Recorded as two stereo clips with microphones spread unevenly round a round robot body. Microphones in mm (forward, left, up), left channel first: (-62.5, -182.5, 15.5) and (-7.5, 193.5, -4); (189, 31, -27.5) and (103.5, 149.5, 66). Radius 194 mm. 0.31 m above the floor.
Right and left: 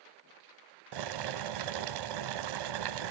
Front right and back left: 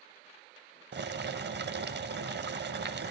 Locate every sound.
0.9 s boiling: 100° left, 0.9 m